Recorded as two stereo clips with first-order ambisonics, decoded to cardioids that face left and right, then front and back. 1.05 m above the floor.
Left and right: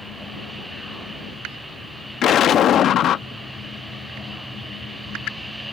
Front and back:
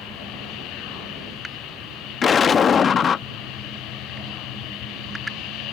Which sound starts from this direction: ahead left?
An explosion, at 2.2 s.